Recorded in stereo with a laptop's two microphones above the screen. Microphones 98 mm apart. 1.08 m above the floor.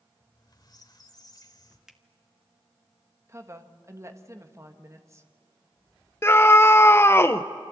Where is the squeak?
45° left (ahead or behind), 1.7 m.